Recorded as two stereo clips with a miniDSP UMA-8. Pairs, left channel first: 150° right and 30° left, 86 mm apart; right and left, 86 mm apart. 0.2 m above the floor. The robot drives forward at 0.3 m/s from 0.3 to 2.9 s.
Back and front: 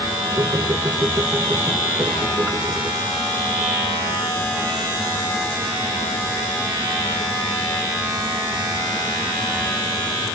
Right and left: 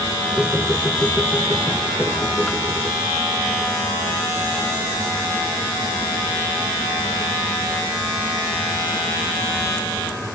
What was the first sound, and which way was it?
Only background noise.